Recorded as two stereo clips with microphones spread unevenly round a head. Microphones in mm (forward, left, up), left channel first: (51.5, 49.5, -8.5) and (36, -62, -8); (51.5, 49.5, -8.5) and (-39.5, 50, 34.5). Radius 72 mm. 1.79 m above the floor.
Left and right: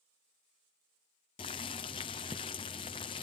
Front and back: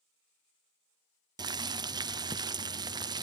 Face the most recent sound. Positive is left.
turn(degrees=140)